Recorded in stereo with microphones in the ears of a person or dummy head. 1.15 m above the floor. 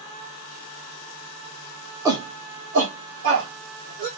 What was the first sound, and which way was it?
A shout, 10° right (ahead or behind).